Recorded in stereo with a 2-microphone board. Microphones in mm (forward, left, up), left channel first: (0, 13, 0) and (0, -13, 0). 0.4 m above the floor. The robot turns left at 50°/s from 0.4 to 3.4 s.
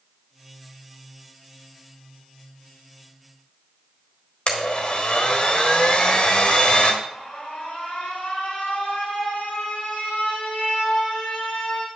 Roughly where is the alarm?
Left.